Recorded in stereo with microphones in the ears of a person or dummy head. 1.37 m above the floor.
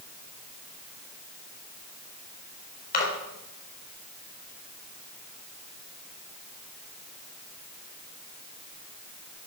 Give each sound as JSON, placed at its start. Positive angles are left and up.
{"t": 2.9, "sound": "a splash", "side_deg": 45, "distance_m": 4.0}